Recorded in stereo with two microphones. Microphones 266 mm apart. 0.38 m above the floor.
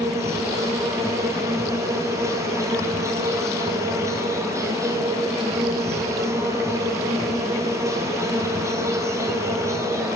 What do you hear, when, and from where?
0.0 s an insect: 10° right (ahead or behind), 1.6 m